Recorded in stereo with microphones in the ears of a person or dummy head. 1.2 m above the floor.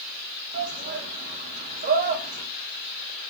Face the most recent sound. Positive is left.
turn(degrees=-40)  # may be behind; listen again after turning